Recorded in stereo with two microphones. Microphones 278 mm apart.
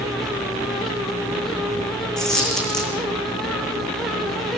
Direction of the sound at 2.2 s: Centre (ahead or behind).